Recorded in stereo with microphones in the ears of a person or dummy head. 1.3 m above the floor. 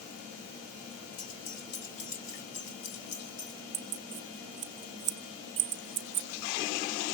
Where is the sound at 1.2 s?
85° left, 4.5 m.